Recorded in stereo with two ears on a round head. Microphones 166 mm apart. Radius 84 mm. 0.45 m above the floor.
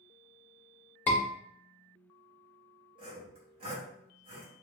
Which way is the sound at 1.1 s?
10° left (ahead or behind).